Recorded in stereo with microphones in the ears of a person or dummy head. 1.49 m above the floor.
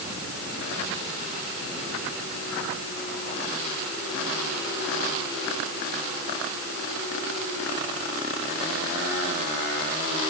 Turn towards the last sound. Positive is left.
No sound to turn to.